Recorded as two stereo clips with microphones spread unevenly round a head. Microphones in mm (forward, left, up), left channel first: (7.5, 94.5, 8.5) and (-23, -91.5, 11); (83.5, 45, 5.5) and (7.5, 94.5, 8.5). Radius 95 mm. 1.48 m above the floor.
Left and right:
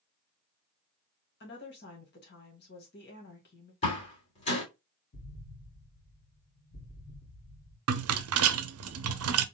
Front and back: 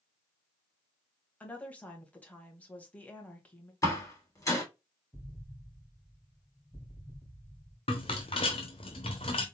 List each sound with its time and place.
1.4 s a woman speaking: 40° left, 2 m
3.8 s a door slam: 20° left, 2.5 m
5.1 s an explosion: 45° left, 3 m
7.9 s a rattle: 90° right, 0.5 m